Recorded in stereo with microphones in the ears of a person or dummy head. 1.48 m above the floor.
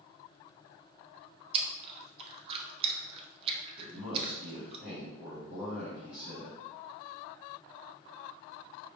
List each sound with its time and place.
1.5 s chewing: 35° right (ahead or behind), 0.7 m
3.8 s a man speaking: centre (ahead or behind), 1.8 m